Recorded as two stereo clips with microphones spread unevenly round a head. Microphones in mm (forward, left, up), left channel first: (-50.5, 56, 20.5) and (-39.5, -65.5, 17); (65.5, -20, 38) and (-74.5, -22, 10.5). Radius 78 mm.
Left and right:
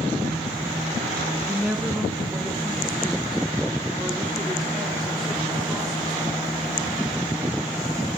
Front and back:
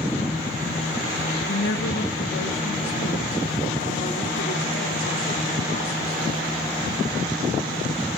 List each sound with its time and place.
1.5 s a woman speaking: 5° right, 1.6 m; by 6.4 s 5° left, 4.5 m